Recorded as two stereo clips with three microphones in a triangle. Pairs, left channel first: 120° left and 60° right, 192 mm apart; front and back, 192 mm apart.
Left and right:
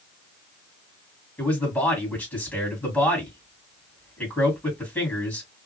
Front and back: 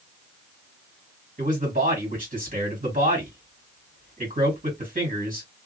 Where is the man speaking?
160° right, 1.8 m.